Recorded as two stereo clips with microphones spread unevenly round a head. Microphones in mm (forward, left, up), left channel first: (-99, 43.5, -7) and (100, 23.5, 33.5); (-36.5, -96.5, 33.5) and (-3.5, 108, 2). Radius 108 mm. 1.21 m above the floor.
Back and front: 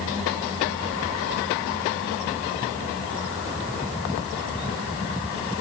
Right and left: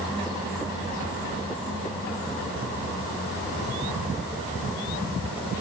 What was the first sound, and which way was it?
Only background noise.